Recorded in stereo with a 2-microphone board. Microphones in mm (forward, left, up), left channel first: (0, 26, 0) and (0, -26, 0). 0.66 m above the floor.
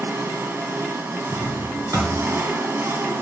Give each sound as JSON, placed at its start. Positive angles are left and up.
{"t": 0.0, "sound": "an engine running", "side_deg": -55, "distance_m": 1.3}
{"t": 1.3, "sound": "a drawer", "side_deg": -85, "distance_m": 3.0}